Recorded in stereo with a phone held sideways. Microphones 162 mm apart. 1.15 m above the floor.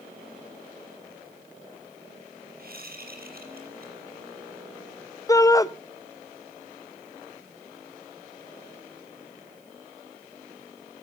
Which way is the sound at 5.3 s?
20° left (ahead or behind).